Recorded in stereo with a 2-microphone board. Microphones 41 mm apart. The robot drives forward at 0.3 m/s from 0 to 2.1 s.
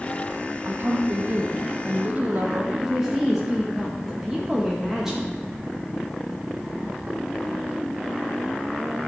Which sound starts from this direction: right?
A woman speaking, at 0.7 s.